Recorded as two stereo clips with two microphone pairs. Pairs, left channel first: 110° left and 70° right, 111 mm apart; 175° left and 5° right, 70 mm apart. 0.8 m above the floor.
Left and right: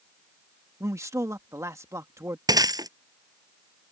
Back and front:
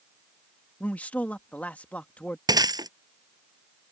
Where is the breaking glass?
20° right.